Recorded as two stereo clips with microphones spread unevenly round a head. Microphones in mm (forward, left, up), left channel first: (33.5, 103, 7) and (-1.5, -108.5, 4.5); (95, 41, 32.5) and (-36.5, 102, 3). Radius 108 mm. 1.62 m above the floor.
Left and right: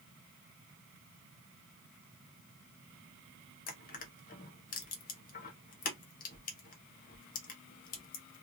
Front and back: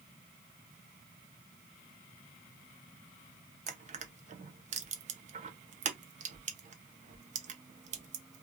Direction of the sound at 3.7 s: 120° left.